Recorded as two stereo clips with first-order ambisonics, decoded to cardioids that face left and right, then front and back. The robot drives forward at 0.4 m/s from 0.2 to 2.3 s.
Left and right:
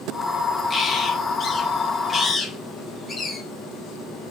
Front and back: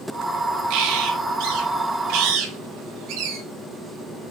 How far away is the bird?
About 2.5 m.